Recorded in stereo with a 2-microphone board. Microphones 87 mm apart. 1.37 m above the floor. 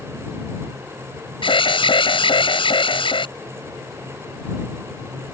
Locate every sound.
1.4 s an alarm: 85° left